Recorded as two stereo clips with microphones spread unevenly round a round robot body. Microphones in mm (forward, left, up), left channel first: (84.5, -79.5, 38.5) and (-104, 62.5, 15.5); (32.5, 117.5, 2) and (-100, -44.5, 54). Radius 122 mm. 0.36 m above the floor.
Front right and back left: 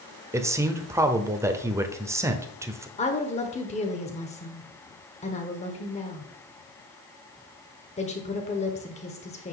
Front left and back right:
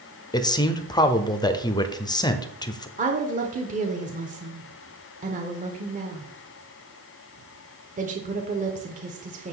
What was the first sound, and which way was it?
A man speaking, 80° left.